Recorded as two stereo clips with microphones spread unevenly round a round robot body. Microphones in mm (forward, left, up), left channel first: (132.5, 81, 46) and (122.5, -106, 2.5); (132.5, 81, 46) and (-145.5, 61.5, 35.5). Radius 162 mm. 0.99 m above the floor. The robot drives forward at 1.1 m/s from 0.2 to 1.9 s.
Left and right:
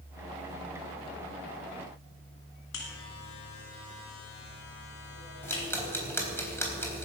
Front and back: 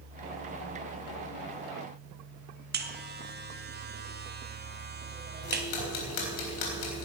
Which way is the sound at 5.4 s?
10° left.